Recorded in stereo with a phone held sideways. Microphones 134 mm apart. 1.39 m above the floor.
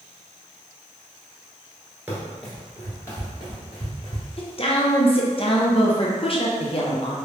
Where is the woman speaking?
45° left (ahead or behind), 0.6 m.